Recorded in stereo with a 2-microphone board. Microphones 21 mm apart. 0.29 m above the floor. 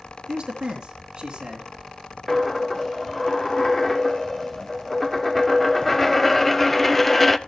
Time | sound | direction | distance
0.3 | a man speaking | 45° right (ahead or behind) | 3.5 m
2.3 | a dropped coin | 10° left (ahead or behind) | 0.6 m